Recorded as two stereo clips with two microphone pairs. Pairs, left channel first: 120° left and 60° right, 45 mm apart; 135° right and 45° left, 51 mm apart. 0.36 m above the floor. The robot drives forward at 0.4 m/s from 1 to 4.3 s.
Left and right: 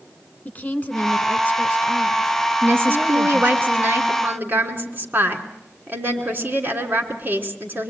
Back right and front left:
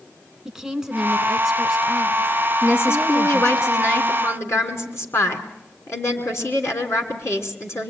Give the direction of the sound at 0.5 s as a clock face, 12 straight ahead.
8 o'clock.